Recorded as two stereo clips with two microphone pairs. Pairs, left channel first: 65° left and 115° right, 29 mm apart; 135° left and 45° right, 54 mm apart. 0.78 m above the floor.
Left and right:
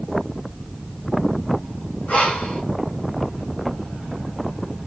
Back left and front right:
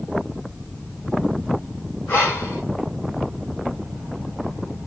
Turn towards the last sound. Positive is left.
turn(degrees=85)